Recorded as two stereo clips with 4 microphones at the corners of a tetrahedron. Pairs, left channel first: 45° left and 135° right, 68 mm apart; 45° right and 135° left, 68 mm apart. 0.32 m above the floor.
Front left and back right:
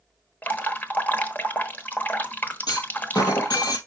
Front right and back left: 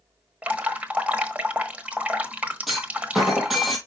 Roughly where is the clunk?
Ahead left.